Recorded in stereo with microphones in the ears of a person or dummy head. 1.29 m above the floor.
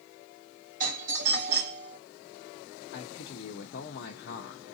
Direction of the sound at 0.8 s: 45° right (ahead or behind).